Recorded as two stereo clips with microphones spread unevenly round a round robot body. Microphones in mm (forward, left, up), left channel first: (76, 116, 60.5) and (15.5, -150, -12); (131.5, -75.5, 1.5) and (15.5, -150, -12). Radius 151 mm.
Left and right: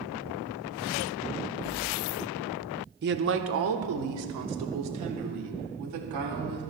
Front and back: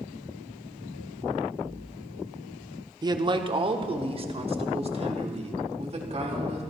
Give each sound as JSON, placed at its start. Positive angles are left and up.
{"t": 3.0, "sound": "a man speaking", "azimuth_deg": -105, "distance_m": 1.0}